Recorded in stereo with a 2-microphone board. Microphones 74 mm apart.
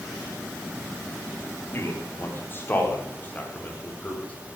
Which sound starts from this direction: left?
A man speaking, at 1.7 s.